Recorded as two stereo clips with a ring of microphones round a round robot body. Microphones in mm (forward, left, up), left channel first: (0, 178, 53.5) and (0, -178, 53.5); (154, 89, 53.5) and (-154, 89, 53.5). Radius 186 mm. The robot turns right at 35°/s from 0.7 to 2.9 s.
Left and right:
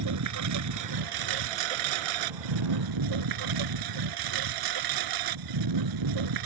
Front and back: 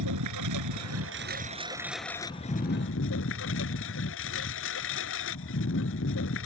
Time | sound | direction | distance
0.0 | a lawn mower | 135° right | ?